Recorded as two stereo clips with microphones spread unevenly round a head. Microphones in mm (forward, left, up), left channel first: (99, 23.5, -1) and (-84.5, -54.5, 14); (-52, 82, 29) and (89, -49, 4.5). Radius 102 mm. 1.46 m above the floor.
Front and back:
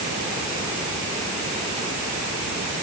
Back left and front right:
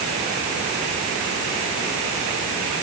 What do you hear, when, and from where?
Only background noise.